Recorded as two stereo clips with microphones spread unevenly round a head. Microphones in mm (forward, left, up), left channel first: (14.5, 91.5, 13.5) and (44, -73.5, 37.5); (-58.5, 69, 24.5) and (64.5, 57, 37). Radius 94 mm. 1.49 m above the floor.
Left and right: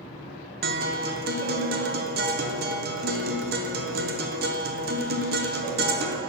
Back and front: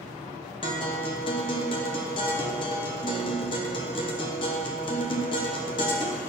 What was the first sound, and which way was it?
A guitar, 125° right.